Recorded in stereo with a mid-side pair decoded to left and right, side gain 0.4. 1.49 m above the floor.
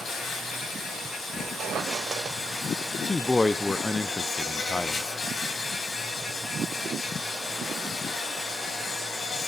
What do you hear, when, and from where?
0.0 s an insect: 55° left, 4.5 m
1.3 s a squeak: 65° right, 1.4 m
3.0 s a man speaking: 20° left, 0.5 m